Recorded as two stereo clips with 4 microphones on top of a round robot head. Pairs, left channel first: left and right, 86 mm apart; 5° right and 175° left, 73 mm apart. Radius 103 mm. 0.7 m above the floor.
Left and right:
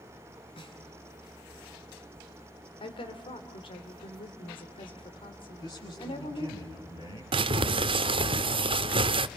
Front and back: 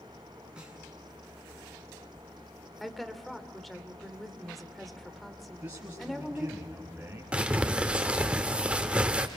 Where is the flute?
No flute in this recording.